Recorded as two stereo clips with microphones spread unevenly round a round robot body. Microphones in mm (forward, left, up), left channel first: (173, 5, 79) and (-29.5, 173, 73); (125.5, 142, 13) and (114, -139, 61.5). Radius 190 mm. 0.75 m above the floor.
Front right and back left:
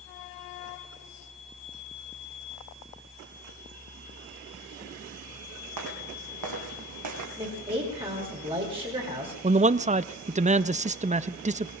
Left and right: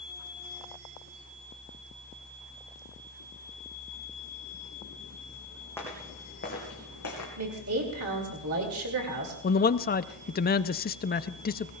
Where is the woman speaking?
145° right, 2.5 m.